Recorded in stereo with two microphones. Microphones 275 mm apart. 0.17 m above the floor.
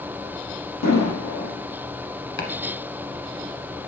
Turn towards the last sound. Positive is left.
turn(degrees=45)  # may be behind; listen again after turning